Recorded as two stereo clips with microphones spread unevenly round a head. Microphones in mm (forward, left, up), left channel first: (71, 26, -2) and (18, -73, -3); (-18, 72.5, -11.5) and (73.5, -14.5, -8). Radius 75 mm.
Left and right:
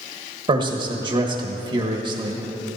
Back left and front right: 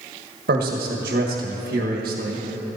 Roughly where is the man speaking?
Right.